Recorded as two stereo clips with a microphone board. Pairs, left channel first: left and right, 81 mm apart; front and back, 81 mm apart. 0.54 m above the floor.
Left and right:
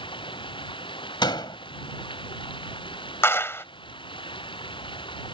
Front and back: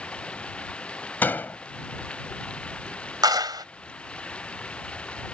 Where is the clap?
150° left.